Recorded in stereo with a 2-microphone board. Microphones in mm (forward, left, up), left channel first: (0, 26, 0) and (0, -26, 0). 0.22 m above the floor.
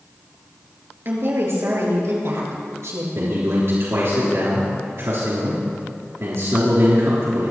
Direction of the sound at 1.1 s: 45° right (ahead or behind).